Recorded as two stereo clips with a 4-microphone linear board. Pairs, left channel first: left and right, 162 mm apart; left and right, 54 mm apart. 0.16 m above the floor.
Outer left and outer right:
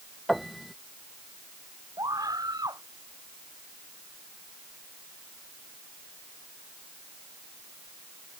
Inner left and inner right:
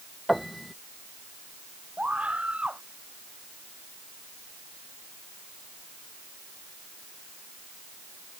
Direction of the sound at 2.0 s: 25° right (ahead or behind).